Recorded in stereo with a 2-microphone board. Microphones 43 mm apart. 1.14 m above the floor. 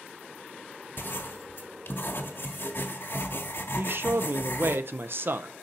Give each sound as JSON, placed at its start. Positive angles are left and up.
{"t": 1.0, "sound": "writing", "side_deg": 60, "distance_m": 1.3}
{"t": 3.8, "sound": "a man speaking", "side_deg": -55, "distance_m": 0.6}